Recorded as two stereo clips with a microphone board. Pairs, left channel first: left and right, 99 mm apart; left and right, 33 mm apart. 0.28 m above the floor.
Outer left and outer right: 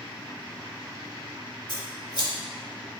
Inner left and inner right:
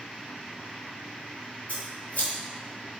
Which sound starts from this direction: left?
Scissors, at 1.7 s.